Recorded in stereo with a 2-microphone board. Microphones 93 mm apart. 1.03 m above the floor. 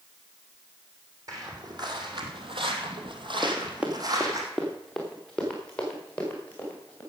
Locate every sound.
1.3 s footsteps: 40° right (ahead or behind), 3.5 m
3.4 s running footsteps: 25° right (ahead or behind), 2.5 m; by 7.0 s 15° left (ahead or behind), 6 m